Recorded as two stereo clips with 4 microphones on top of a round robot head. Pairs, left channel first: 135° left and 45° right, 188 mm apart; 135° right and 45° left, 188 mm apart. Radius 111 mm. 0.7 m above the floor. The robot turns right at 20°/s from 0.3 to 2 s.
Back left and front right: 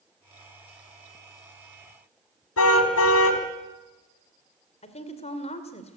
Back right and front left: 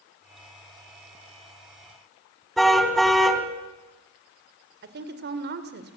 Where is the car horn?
135° left, 2.5 m.